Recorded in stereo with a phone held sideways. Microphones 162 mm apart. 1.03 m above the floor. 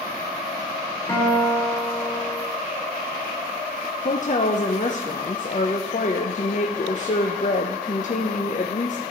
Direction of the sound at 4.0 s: 50° left (ahead or behind).